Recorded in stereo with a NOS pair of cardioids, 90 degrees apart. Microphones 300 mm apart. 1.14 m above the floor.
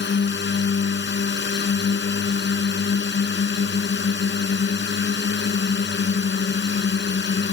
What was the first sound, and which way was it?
A drone, 35° left.